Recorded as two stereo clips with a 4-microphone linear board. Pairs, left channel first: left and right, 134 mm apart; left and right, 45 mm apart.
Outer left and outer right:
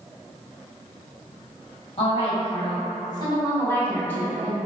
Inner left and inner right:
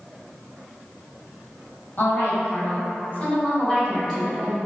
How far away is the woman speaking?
About 1.4 m.